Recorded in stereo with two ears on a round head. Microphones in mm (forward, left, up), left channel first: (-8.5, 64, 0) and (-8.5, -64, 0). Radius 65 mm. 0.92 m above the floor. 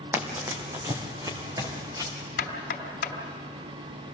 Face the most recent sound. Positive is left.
turn(degrees=70)  # may be behind; listen again after turning